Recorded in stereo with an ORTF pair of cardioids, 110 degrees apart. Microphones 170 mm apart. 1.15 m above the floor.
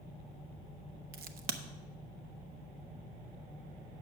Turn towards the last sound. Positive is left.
turn(degrees=-65)